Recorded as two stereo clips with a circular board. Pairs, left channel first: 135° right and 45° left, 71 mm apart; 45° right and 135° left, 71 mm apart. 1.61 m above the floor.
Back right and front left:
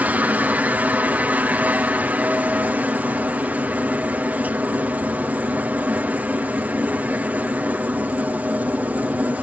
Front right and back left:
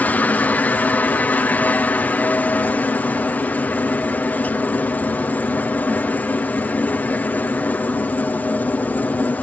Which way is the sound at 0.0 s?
Straight ahead.